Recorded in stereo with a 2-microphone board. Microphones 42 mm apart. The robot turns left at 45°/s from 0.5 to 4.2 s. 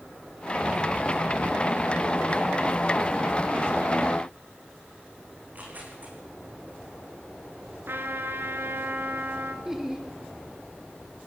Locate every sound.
5.4 s tearing paper: 40° right (ahead or behind), 6 m
7.9 s a trumpet: 65° right (ahead or behind), 2.5 m
9.7 s laughter: 10° right (ahead or behind), 3.5 m